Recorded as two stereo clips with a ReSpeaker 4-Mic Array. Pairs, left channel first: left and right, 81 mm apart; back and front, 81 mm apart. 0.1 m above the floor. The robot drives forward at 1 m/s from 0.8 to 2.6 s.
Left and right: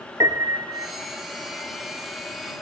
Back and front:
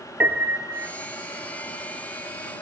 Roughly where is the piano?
Ahead right.